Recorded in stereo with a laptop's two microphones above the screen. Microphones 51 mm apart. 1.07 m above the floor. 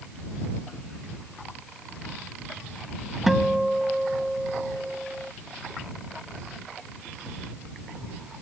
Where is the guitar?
5° right (ahead or behind).